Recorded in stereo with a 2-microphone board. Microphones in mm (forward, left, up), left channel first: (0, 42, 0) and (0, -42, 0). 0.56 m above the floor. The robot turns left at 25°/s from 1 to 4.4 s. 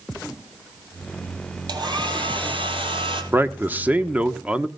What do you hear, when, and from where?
1.7 s a hair dryer: 60° right, 3 m; by 3.2 s 100° right, 3 m
3.3 s a man speaking: 25° right (ahead or behind), 1.1 m; by 4.7 s 15° right (ahead or behind), 1.1 m